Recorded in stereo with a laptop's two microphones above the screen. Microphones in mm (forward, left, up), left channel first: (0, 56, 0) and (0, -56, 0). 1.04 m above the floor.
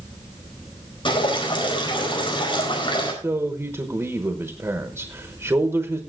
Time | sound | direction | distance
1.1 | dripping | 45° left (ahead or behind) | 4.5 m
3.2 | a man speaking | 20° right (ahead or behind) | 1.1 m